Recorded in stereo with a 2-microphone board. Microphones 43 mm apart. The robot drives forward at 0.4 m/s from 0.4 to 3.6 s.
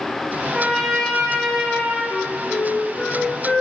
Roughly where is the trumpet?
Centre.